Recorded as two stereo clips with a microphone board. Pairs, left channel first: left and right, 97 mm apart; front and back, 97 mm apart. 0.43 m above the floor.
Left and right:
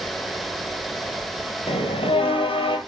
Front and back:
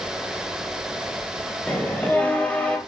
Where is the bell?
75° left, 1.6 m.